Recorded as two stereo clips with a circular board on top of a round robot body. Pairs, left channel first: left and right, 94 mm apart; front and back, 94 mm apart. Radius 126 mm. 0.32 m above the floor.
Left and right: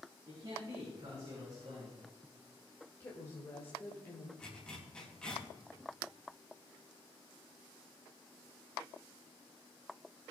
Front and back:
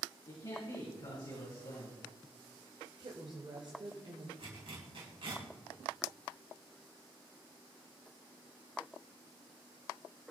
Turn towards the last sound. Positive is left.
turn(degrees=170)